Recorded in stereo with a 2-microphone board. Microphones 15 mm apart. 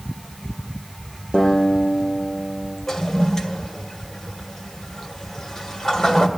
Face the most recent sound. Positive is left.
turn(degrees=35)  # may be behind; listen again after turning